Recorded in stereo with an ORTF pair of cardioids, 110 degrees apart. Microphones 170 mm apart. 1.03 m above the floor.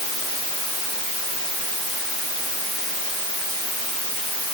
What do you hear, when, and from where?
Only background noise.